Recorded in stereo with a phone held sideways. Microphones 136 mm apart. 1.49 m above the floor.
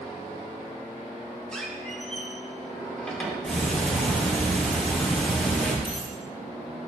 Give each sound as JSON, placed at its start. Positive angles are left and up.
{"t": 1.5, "sound": "a squeak", "side_deg": 5, "distance_m": 2.5}
{"t": 3.5, "sound": "ticking", "side_deg": 5, "distance_m": 2.5}
{"t": 5.8, "sound": "a dropped coin", "side_deg": -5, "distance_m": 5.0}